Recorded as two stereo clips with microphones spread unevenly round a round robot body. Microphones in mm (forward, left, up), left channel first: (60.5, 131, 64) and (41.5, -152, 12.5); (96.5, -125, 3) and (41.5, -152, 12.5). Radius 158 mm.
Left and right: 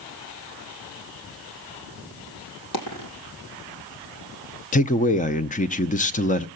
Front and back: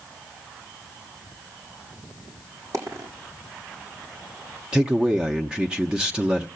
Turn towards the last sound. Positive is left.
turn(degrees=130)